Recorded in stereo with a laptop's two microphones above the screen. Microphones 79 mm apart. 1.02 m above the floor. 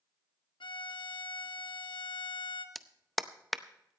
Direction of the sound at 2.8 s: Centre (ahead or behind).